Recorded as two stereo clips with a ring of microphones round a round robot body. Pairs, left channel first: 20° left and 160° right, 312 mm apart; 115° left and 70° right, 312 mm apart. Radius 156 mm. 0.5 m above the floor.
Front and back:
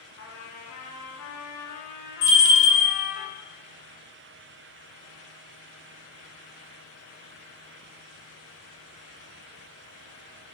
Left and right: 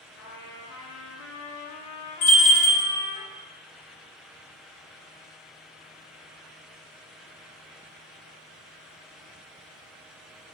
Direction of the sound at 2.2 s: 85° left.